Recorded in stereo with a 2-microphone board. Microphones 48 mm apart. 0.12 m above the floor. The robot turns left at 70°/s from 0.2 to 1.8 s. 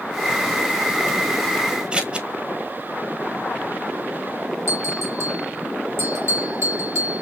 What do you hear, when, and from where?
1.9 s scissors: 20° right (ahead or behind), 1.3 m
4.7 s a bell: 70° right (ahead or behind), 1.9 m